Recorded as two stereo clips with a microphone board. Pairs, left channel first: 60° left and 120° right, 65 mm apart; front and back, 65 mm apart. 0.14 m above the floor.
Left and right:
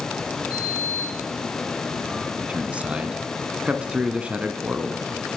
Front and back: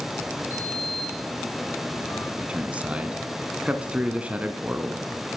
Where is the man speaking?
150° right, 1.0 m.